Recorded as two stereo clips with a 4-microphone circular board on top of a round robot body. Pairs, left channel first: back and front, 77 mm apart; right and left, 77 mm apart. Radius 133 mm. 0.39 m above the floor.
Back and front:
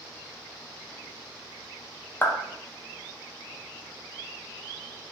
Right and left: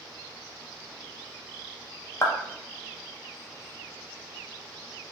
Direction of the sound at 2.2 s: 125° right.